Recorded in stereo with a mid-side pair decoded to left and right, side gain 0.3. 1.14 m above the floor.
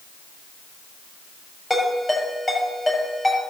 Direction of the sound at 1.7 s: 25° left.